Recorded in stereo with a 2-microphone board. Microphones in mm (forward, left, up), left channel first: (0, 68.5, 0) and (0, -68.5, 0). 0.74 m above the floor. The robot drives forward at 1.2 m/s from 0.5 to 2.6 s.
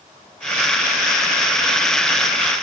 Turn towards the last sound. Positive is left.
No sound to turn to.